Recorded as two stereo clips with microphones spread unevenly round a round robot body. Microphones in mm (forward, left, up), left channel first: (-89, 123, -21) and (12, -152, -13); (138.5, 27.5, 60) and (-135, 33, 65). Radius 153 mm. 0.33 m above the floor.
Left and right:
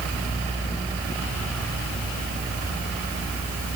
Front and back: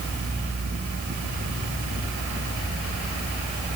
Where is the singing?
I don't hear singing.